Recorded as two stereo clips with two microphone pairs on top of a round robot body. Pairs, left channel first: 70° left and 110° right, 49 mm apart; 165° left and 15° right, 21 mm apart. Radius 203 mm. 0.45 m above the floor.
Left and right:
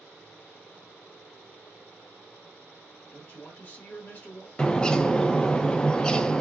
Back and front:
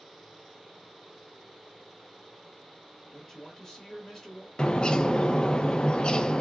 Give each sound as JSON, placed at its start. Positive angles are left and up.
{"t": 3.1, "sound": "a man speaking", "azimuth_deg": 110, "distance_m": 1.6}
{"t": 4.6, "sound": "a bird", "azimuth_deg": 135, "distance_m": 0.5}